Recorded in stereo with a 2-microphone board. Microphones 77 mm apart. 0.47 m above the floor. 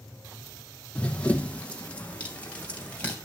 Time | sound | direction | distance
0.9 | running footsteps | 15° left (ahead or behind) | 1.2 m